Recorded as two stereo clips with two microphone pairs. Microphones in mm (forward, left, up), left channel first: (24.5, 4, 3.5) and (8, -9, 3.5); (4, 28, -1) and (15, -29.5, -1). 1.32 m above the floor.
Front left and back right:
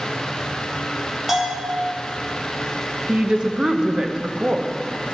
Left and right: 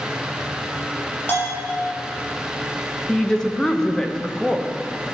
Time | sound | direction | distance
1.3 | a bell | 155° left | 3.5 m
3.1 | a woman speaking | straight behind | 0.9 m